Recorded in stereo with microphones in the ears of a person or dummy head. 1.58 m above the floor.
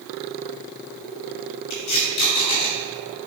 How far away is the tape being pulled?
About 2.5 m.